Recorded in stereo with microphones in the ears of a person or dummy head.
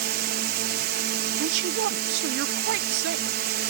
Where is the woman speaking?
60° right (ahead or behind).